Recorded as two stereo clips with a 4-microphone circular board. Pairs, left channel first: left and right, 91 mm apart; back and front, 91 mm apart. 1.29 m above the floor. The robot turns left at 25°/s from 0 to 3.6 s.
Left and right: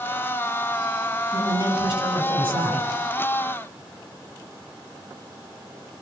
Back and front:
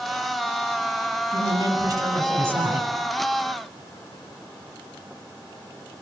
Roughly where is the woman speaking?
Ahead right.